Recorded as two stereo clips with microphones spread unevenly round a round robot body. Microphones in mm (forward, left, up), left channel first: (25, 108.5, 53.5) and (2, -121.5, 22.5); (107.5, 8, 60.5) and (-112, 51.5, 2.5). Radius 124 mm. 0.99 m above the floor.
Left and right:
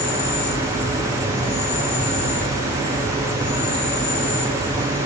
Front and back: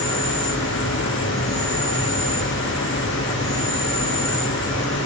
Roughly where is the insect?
Left.